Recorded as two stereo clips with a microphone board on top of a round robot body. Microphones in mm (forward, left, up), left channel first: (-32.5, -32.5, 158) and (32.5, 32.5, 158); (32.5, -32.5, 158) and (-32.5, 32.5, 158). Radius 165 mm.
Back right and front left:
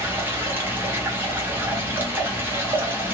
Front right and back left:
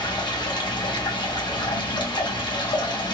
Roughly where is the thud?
No thud in this recording.